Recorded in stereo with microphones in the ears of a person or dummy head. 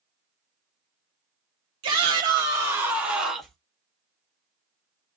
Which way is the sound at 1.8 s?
30° right (ahead or behind).